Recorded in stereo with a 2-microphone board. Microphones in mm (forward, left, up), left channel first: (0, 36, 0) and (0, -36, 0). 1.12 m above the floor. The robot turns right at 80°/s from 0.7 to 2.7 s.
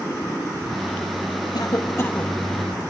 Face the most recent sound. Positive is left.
turn(degrees=-160)